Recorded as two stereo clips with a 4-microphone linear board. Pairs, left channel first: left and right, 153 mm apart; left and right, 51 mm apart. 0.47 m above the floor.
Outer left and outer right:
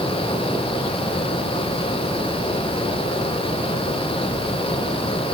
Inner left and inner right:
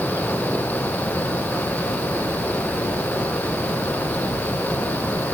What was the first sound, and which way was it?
Only background noise.